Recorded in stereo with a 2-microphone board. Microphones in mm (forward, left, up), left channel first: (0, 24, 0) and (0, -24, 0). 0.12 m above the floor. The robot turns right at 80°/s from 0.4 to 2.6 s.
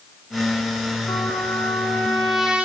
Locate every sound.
1.1 s a trumpet: 85° left, 4.5 m; by 2.7 s 155° right, 4.5 m